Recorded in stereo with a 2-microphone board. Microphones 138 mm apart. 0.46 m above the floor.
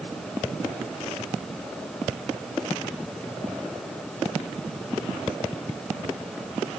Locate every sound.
Only background noise.